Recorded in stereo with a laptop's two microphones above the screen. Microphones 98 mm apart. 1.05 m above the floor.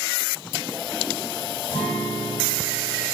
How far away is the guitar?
About 3 m.